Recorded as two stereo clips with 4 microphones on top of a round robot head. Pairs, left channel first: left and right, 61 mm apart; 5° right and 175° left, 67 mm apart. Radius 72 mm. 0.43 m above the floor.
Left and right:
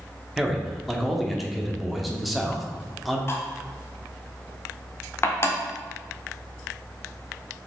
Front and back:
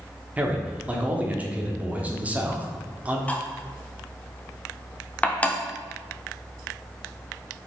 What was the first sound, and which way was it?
A man speaking, straight behind.